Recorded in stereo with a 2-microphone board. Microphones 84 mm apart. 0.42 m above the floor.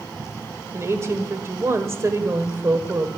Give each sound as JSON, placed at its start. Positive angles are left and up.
{"t": 0.7, "sound": "a woman speaking", "side_deg": -35, "distance_m": 1.3}